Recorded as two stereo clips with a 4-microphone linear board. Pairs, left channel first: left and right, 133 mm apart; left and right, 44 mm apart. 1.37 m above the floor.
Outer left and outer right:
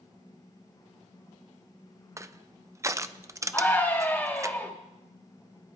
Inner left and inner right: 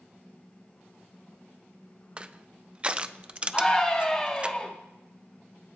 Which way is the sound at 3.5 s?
15° left (ahead or behind).